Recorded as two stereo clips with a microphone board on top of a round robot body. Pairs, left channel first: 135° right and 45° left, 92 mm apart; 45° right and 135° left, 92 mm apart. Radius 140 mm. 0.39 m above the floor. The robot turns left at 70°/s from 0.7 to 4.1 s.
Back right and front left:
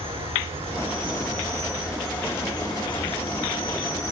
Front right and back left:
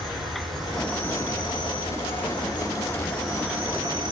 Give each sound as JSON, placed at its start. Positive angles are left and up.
{"t": 0.0, "sound": "an insect", "azimuth_deg": 45, "distance_m": 2.0}